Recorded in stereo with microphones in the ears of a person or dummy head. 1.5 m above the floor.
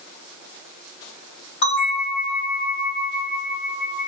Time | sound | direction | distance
1.6 | a bell | 60° left (ahead or behind) | 1.6 m